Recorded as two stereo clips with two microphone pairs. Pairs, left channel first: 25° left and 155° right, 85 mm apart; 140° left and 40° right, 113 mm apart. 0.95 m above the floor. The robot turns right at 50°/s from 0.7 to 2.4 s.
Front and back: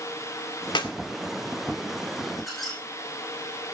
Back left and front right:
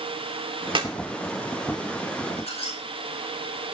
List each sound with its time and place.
0.8 s a clap: straight ahead, 2 m; by 0.9 s 10° left, 2 m
2.4 s a squeak: 115° left, 8.5 m